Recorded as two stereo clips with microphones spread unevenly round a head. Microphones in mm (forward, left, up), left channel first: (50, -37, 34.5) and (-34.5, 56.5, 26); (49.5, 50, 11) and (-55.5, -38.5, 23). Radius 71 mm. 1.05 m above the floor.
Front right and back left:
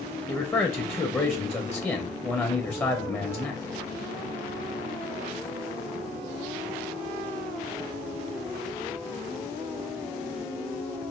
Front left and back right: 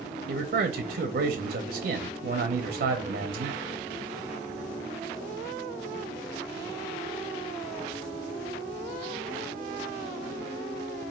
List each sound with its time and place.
0.3 s a man speaking: 120° right, 0.6 m